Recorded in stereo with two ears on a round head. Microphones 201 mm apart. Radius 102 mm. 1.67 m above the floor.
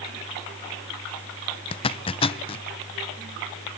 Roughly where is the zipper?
Left.